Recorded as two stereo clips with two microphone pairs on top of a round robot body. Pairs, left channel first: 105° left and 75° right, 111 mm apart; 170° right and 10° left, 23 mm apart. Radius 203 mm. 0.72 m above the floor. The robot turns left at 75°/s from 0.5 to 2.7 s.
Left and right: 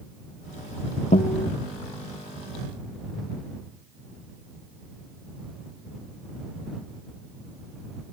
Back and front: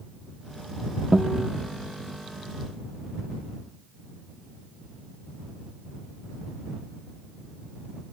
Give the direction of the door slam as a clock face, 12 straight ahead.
I don't hear a door slam.